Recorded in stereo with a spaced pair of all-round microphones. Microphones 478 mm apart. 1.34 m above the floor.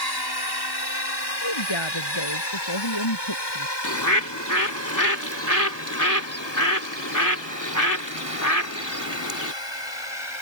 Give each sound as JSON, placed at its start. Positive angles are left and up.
{"t": 0.0, "sound": "a drone", "side_deg": 50}
{"t": 1.4, "sound": "a woman speaking", "side_deg": 65}
{"t": 3.8, "sound": "a bird", "side_deg": 40}